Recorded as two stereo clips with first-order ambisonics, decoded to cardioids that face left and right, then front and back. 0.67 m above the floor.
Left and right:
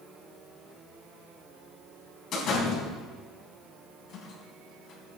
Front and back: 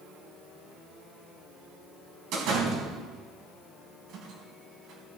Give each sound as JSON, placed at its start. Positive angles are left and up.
{"t": 2.3, "sound": "a door slam", "azimuth_deg": 145, "distance_m": 4.0}